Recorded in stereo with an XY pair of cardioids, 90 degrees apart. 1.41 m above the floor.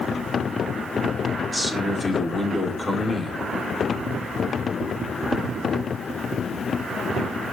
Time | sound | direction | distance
1.5 | a man speaking | 20° left | 4.5 m